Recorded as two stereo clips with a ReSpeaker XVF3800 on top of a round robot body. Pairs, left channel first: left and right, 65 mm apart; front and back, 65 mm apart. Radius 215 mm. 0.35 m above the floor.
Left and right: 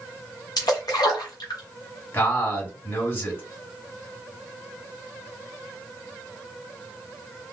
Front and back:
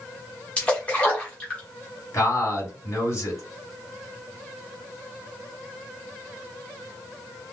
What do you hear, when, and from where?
0.6 s a splash: 70° left, 1.1 m
2.1 s a man speaking: 40° left, 2.5 m